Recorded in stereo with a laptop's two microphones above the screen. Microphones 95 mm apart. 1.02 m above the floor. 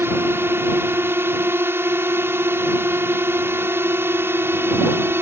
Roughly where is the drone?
Right.